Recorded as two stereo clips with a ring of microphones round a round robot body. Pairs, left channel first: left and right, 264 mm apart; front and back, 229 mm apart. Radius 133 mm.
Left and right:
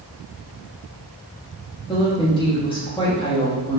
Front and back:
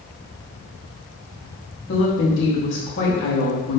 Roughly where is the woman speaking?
Ahead.